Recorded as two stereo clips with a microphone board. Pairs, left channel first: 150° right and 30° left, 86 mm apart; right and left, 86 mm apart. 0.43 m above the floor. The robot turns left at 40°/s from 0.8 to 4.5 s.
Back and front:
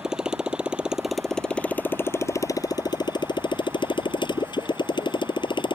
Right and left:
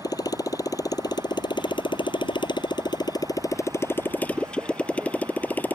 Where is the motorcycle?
50° right; by 5.8 s 160° right.